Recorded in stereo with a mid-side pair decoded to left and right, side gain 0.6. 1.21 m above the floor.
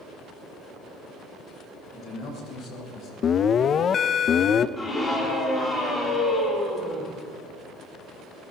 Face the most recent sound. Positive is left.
turn(degrees=20)